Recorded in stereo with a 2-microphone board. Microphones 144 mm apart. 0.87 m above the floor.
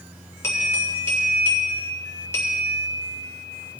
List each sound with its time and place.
0.4 s a bell: 15° left (ahead or behind), 3.5 m